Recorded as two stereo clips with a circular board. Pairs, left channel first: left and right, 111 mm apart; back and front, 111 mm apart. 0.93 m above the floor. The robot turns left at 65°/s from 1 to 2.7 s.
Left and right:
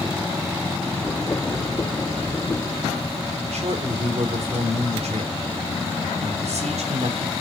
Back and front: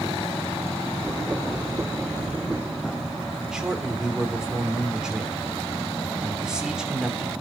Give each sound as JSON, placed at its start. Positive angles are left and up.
{"t": 3.5, "sound": "a man speaking", "azimuth_deg": -85, "distance_m": 3.0}